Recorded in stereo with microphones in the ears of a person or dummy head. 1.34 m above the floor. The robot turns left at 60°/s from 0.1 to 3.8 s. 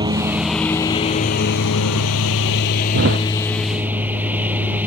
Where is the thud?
70° right (ahead or behind); by 3.2 s 55° right (ahead or behind).